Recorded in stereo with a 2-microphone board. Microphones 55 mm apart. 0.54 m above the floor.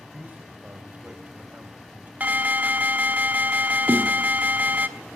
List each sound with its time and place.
0.1 s a man speaking: 30° right (ahead or behind), 2.5 m
2.2 s an alarm: 30° right (ahead or behind), 1.0 m
3.9 s a snare drum: 40° right (ahead or behind), 0.7 m